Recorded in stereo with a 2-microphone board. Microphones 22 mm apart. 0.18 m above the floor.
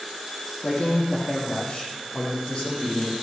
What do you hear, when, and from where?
0.6 s a man speaking: 55° left (ahead or behind), 6.5 m; by 3.1 s 35° left (ahead or behind), 7.5 m